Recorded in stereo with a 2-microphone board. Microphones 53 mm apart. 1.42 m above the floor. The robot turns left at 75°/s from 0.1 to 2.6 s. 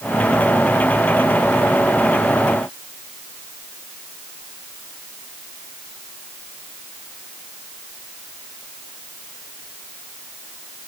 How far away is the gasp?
No gasp in this recording.